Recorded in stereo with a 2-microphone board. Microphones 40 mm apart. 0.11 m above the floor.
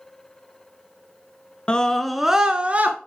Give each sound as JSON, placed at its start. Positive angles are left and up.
{"t": 1.7, "sound": "a scream", "side_deg": 25, "distance_m": 1.1}